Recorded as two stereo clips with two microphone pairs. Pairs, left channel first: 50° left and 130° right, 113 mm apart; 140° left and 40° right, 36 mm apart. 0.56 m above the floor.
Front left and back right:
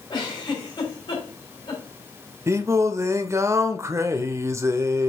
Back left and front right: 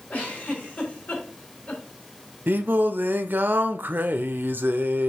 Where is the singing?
60° right, 0.6 m.